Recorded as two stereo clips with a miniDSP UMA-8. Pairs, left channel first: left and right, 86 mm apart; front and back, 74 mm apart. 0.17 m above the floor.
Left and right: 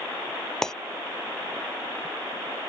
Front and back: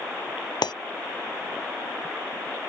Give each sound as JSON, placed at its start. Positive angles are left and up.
{"t": 0.6, "sound": "breaking glass", "azimuth_deg": 5}